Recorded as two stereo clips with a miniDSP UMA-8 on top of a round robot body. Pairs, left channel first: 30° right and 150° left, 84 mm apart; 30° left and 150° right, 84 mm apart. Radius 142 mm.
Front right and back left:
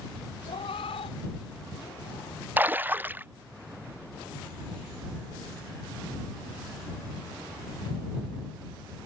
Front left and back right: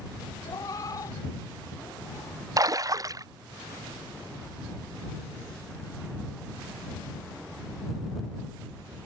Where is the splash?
155° right.